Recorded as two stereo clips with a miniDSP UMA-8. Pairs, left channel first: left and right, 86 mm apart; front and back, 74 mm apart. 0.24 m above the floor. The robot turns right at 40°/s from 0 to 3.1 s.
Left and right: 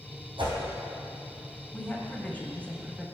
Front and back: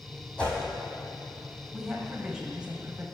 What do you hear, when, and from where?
0.4 s a whoosh: 80° right, 2 m; by 0.6 s 70° right, 2 m
1.7 s a woman speaking: 95° left, 1.0 m; by 3.0 s 150° left, 1.0 m